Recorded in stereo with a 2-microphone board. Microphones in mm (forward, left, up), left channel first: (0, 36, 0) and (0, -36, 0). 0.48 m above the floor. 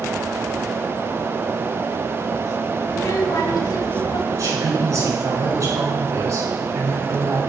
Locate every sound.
2.9 s a child speaking: 55° left (ahead or behind), 1.7 m; by 4.2 s 70° left (ahead or behind), 2.5 m
4.3 s a woman speaking: 55° right (ahead or behind), 5.5 m